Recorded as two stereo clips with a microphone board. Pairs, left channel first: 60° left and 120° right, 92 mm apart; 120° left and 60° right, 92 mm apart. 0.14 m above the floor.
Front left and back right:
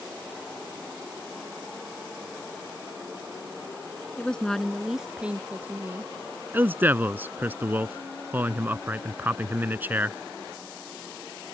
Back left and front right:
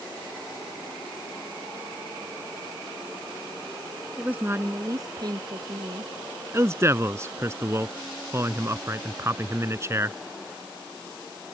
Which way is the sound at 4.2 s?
5° left.